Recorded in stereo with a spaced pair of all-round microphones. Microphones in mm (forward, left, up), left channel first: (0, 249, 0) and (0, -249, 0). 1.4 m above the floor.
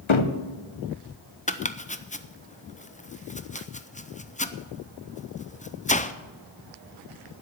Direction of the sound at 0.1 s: 70° left (ahead or behind).